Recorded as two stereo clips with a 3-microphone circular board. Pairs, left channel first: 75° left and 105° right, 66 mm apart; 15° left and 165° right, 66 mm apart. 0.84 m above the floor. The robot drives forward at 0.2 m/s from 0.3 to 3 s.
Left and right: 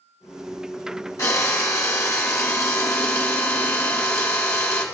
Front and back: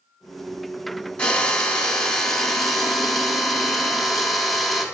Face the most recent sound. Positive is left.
turn(degrees=100)